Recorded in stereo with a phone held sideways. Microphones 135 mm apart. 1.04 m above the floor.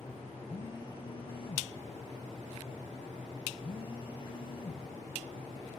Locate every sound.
0.5 s a phone buzzing: 40° left (ahead or behind), 1.3 m